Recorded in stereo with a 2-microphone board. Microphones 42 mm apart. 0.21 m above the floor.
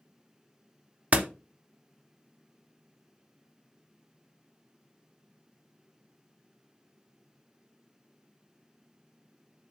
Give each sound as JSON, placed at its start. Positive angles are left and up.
{"t": 1.1, "sound": "a door slam", "side_deg": -35, "distance_m": 0.9}